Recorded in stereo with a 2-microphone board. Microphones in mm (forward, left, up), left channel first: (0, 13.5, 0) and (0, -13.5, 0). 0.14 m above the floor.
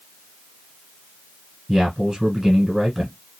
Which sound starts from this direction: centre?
A man speaking, at 1.7 s.